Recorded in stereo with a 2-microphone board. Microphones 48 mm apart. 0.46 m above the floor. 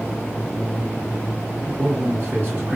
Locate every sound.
1.6 s a man speaking: 40° right (ahead or behind), 1.9 m